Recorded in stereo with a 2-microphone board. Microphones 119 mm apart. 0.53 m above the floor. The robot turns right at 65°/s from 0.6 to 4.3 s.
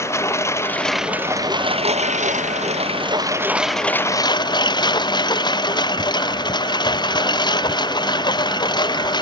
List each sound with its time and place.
0.0 s a lawn mower: 155° left; by 9.2 s 40° left